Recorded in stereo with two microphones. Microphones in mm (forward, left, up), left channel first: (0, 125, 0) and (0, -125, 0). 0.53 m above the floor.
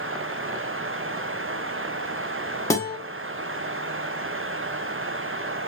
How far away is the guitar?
About 1.0 m.